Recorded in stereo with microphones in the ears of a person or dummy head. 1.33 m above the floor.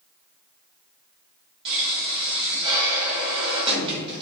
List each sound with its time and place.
1.6 s a pop: 30° right (ahead or behind), 2.5 m